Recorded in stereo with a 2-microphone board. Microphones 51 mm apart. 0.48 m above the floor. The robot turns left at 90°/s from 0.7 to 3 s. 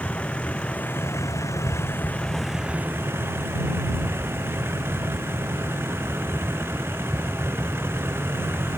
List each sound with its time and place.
0.0 s a vehicle: 155° left; by 8.8 s 50° right